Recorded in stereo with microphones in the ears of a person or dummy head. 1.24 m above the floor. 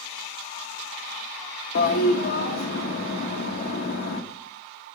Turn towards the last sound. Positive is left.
turn(degrees=55)  # may be behind; listen again after turning